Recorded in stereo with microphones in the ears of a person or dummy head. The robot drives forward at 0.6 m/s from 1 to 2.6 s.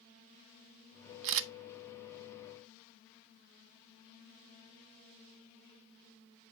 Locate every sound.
1.2 s a camera shutter: 65° right (ahead or behind), 0.8 m